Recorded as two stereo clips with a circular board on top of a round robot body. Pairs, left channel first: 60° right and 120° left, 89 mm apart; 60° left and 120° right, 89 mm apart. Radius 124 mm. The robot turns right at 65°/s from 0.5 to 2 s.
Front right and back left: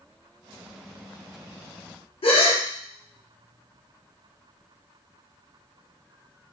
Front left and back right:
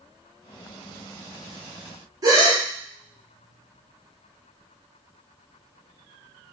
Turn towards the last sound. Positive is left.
turn(degrees=-70)